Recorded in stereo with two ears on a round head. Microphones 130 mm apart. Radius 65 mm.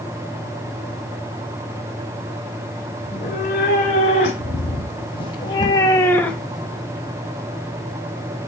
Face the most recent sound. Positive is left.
turn(degrees=-10)  # may be behind; listen again after turning